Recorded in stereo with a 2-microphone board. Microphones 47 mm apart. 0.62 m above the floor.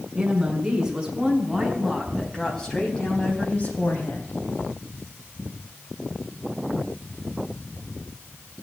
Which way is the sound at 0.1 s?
15° right (ahead or behind).